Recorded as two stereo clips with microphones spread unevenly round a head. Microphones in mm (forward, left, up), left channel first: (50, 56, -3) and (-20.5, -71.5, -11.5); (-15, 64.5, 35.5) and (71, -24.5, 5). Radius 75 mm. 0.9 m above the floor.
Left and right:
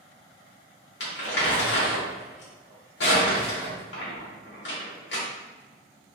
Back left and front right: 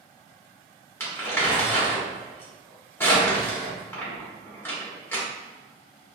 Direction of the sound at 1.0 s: 60° left.